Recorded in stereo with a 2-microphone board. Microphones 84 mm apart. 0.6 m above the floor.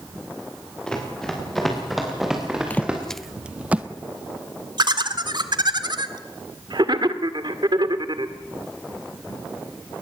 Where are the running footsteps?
10° left (ahead or behind), 6.5 m; by 3.0 s 15° right (ahead or behind), 5.5 m.